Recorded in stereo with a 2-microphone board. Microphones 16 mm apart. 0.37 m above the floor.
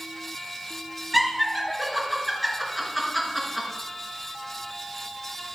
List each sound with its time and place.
1.1 s laughter: centre (ahead or behind), 4 m